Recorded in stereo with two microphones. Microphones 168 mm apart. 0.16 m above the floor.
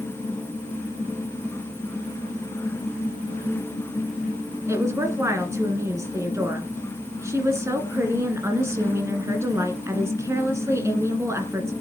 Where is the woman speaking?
15° right (ahead or behind), 1.9 m.